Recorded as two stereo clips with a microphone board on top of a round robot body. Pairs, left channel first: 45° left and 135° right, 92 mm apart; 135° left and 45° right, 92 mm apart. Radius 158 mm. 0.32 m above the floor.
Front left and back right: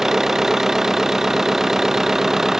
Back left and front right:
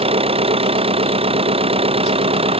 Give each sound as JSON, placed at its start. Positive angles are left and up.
{"t": 0.0, "sound": "an engine running", "azimuth_deg": -50}